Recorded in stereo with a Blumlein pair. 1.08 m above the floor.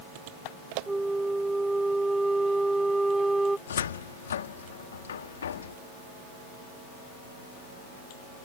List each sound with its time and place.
0.9 s a flute: 5° right
3.7 s a cupboard door: 65° left